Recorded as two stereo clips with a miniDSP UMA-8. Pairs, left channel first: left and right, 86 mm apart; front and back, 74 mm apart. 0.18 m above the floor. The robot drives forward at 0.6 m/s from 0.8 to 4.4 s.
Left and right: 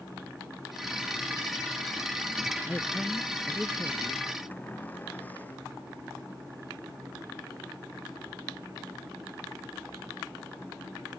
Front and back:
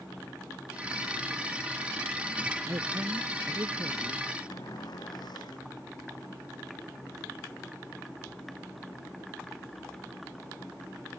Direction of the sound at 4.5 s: 20° left.